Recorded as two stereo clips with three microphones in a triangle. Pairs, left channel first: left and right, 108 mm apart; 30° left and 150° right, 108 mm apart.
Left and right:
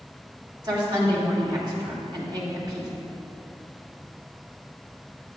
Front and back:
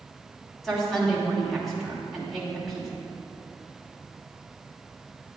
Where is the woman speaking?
60° right, 2 m.